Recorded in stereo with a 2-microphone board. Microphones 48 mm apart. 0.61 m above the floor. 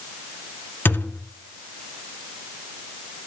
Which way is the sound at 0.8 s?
45° left (ahead or behind).